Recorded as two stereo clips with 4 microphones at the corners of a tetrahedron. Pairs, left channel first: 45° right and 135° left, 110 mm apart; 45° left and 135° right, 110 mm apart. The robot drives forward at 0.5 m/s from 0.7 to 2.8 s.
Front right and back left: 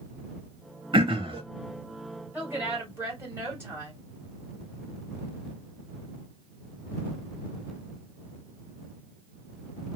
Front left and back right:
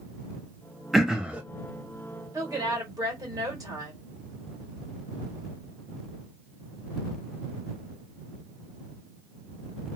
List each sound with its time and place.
0.9 s throat clearing: 135° left, 0.7 m; by 1.4 s 150° left, 0.8 m
2.3 s a woman speaking: 165° right, 1.5 m; by 4.0 s 170° right, 1.7 m